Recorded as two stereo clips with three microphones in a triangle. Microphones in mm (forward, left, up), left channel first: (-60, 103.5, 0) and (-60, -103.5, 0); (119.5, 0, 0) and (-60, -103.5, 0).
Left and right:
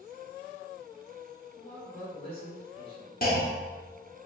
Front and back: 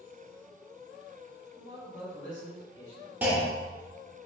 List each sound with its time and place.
1.6 s a man speaking: 70° left, 1.5 m; by 3.1 s 30° left, 1.8 m
3.2 s a clunk: 130° left, 0.8 m